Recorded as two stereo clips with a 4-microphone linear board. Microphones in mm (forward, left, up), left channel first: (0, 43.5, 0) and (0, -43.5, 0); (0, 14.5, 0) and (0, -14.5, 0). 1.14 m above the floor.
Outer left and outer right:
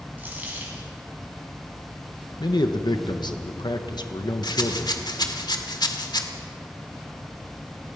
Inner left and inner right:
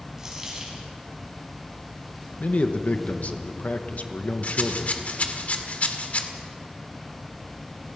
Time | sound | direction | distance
0.2 | a dropped coin | 20° right (ahead or behind) | 5 m
2.4 | a man speaking | 55° left (ahead or behind) | 1.2 m
4.4 | a rattle | 55° left (ahead or behind) | 1.8 m